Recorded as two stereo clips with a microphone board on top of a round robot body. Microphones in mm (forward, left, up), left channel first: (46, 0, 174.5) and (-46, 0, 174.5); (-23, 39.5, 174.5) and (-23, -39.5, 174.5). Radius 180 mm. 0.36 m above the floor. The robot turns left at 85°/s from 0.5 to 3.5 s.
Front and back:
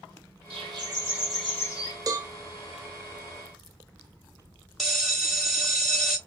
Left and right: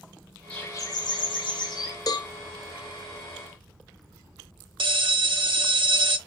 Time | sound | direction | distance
0.5 | a bird | 165° left | 1.4 m
2.1 | a cowbell | 130° left | 0.7 m
4.8 | a bell | 90° right | 1.2 m